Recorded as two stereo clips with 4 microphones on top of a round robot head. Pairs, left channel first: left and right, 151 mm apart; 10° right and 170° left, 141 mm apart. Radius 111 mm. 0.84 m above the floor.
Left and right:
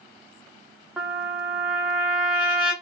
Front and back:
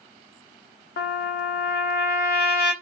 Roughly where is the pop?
No pop in this recording.